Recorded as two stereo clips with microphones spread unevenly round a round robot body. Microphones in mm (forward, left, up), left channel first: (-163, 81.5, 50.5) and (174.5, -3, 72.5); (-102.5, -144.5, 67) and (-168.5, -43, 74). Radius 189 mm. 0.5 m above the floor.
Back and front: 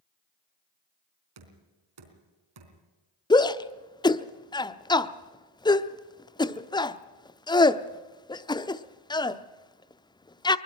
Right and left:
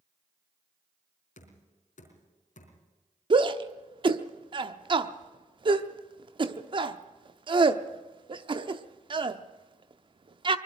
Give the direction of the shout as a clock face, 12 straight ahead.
9 o'clock.